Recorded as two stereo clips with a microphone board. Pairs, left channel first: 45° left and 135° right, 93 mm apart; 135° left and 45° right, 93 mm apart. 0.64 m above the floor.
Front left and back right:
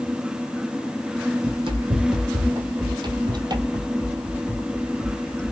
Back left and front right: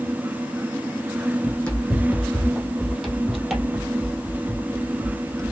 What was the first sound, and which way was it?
Running footsteps, 150° right.